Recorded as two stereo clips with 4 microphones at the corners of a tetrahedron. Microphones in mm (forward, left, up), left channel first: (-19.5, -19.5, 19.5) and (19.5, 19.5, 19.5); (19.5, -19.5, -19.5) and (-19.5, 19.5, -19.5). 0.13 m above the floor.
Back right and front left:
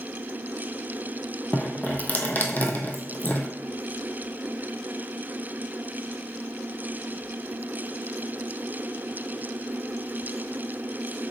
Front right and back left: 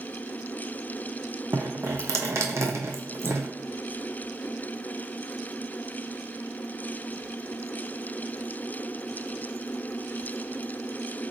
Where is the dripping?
165° left, 0.8 m.